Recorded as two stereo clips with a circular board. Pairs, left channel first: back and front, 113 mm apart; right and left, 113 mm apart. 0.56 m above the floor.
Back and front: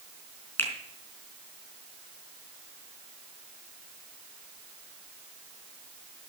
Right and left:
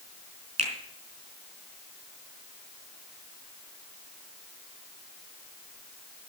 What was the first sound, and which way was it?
A finger snap, 110° left.